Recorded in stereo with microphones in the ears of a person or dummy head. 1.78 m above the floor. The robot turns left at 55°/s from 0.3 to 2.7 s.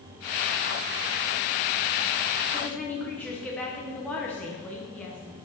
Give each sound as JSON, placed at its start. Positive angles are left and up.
{"t": 2.5, "sound": "a woman speaking", "side_deg": -5, "distance_m": 1.2}